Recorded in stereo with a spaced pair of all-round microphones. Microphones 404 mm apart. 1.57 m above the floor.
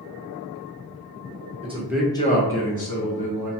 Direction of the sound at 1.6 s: 15° right (ahead or behind).